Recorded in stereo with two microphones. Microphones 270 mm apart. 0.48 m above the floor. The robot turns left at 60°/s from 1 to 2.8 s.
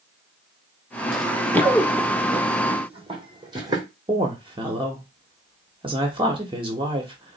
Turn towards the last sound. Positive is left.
turn(degrees=-20)  # may be behind; listen again after turning